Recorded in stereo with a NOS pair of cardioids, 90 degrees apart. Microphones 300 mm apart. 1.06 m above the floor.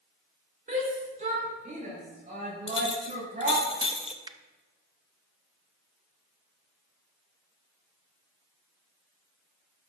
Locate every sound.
0.7 s a shout: 25° right, 3 m
2.7 s a clink: 20° left, 1.1 m
4.2 s a finger snap: 15° right, 0.6 m